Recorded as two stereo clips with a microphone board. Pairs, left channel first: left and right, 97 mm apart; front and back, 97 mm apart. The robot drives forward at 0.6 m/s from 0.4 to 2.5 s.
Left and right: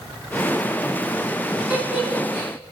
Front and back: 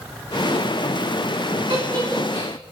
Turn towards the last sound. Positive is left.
turn(degrees=-165)